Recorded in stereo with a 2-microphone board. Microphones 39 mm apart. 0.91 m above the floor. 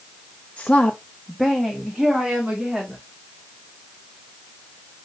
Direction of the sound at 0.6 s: 30° left (ahead or behind).